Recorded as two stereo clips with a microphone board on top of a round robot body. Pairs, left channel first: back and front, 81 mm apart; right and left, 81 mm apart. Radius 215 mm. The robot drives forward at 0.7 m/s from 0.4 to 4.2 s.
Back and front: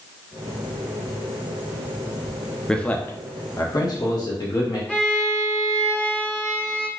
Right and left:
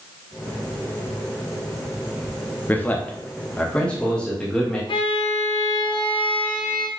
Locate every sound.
2.7 s a man speaking: 110° right, 1.0 m; by 4.8 s 165° right, 1.5 m
4.9 s a violin: 105° right, 0.7 m